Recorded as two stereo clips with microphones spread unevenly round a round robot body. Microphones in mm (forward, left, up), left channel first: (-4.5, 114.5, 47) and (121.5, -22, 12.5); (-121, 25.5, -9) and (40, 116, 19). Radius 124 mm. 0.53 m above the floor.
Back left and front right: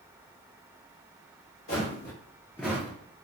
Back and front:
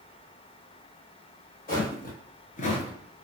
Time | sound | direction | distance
1.7 | footsteps | 160° left | 1.6 m